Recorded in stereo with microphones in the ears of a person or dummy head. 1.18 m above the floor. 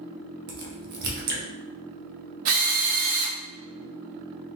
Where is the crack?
55° right (ahead or behind), 1.0 m.